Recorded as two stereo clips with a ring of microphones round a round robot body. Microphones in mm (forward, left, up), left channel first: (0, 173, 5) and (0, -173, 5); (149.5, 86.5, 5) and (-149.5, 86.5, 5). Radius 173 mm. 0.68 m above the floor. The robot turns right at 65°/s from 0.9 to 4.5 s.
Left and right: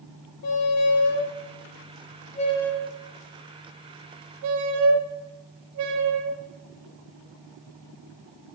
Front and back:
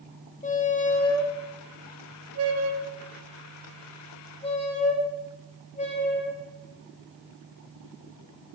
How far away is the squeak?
About 0.7 m.